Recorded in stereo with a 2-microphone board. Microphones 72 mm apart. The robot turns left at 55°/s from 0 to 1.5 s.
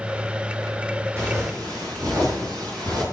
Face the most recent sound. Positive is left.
turn(degrees=-60)  # may be behind; listen again after turning